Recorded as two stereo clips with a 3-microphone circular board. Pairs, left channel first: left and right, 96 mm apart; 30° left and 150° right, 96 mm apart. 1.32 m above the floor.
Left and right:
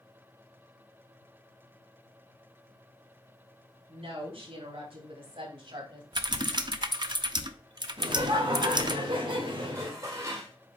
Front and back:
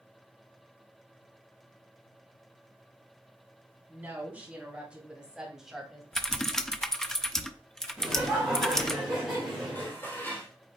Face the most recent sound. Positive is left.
turn(degrees=-35)